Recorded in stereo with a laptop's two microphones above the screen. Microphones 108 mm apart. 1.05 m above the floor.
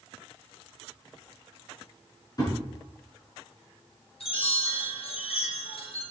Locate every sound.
2.4 s a thud: 35° left (ahead or behind), 5.5 m
4.2 s a chime: 60° left (ahead or behind), 3 m